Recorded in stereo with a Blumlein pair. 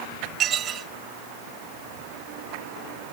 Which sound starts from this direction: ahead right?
Dishes clattering, at 0.4 s.